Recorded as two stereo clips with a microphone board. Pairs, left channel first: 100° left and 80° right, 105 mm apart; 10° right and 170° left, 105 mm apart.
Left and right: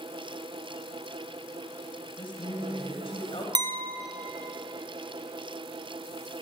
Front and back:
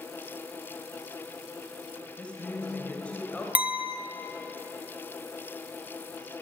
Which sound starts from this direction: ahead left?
A woman speaking, at 2.2 s.